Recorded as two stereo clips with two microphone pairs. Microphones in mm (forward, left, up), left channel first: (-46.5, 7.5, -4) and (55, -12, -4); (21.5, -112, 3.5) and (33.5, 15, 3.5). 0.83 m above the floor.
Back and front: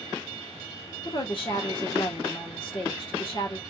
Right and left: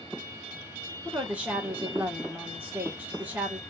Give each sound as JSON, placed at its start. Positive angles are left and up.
{"t": 1.1, "sound": "a woman speaking", "azimuth_deg": 160, "distance_m": 1.3}